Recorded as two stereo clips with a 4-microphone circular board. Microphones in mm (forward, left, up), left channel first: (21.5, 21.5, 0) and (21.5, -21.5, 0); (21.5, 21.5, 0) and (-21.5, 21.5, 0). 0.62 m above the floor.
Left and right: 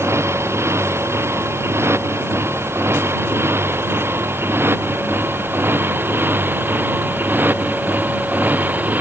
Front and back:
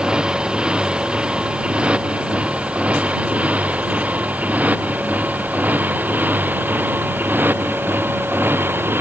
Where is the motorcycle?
110° right; by 9.0 s 140° right.